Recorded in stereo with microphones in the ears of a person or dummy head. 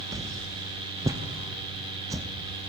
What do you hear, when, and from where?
0.1 s a whoosh: 20° right (ahead or behind), 0.6 m